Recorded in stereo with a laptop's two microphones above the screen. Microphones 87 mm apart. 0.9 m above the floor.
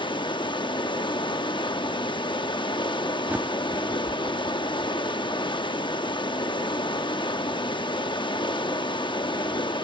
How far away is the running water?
About 0.7 m.